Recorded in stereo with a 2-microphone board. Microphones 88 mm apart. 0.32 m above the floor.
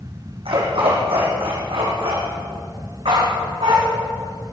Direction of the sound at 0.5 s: 80° right.